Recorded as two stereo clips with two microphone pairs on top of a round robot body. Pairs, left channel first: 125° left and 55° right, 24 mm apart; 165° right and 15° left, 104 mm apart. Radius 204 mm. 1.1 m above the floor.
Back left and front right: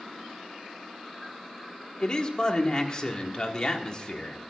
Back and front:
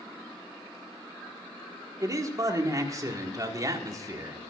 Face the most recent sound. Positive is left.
turn(degrees=70)